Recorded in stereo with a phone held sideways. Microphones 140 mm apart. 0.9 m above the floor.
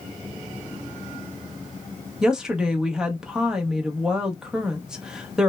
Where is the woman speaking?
5° right (ahead or behind), 0.6 m.